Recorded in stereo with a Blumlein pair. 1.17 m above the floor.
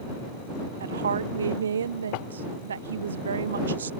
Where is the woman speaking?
70° right.